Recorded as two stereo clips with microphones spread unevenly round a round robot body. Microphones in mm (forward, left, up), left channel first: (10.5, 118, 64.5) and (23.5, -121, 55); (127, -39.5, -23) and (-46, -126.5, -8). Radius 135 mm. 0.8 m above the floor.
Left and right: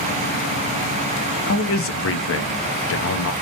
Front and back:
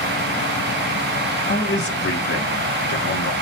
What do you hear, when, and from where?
1.5 s a man speaking: 65° left, 0.7 m